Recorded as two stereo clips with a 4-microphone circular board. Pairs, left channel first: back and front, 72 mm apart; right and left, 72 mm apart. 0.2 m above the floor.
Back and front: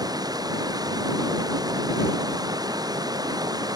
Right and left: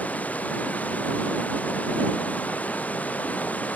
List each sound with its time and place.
0.0 s running water: 20° right